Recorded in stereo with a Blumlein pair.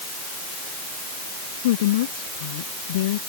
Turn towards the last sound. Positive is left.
turn(degrees=55)